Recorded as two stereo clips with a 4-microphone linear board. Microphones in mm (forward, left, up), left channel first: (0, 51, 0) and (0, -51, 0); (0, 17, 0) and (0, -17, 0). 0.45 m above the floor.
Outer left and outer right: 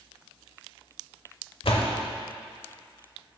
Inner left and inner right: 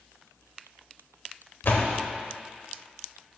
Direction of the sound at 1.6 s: 65° left (ahead or behind).